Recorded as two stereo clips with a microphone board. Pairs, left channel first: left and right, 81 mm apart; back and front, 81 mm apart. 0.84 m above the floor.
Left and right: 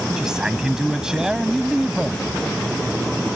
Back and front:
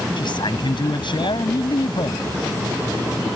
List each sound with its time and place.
0.2 s a man speaking: 175° right